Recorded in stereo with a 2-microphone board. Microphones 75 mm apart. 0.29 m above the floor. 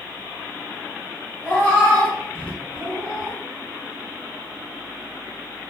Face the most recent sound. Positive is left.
turn(degrees=20)  # may be behind; listen again after turning